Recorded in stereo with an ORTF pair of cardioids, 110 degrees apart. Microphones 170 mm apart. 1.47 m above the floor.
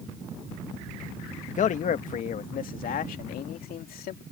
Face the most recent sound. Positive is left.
turn(degrees=60)